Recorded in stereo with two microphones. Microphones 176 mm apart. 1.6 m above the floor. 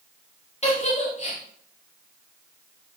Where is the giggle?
40° left (ahead or behind), 4.5 m.